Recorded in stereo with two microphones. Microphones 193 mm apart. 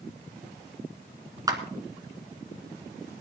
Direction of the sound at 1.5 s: 20° right (ahead or behind).